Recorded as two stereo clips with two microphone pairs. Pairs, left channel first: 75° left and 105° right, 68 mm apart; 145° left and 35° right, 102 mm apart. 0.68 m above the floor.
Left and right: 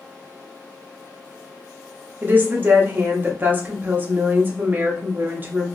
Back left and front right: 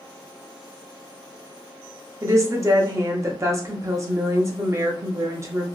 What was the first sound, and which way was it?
A woman speaking, 65° right.